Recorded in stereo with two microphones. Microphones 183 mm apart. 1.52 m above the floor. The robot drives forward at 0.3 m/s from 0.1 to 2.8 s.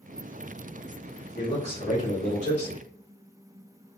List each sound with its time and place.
1.4 s a man speaking: 80° left, 2.0 m; by 2.9 s 70° left (ahead or behind), 2 m